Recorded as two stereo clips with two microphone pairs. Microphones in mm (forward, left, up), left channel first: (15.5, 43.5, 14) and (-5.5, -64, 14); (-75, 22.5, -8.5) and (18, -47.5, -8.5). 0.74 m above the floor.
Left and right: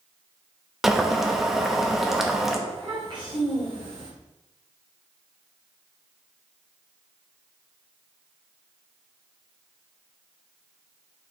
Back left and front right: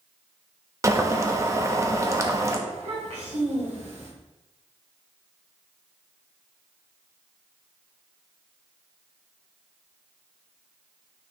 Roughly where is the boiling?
Ahead.